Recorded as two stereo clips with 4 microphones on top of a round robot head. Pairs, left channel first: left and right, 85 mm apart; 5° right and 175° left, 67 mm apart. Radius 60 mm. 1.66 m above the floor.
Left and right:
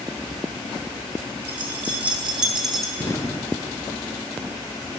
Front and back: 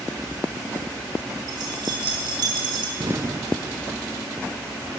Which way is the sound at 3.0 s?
140° left.